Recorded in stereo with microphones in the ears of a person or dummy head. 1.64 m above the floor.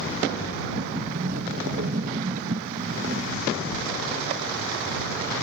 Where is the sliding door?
45° right (ahead or behind).